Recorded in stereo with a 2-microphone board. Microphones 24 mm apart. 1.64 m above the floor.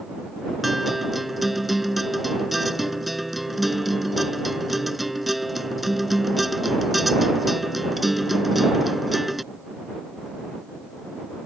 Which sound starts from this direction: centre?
A guitar, at 0.6 s.